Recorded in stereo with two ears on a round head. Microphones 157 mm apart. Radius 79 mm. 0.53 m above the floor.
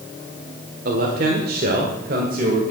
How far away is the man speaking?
About 1.7 m.